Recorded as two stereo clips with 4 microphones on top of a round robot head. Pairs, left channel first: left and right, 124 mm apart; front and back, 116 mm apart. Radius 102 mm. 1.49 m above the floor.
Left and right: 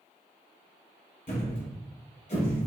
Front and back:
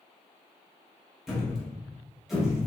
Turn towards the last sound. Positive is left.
turn(degrees=90)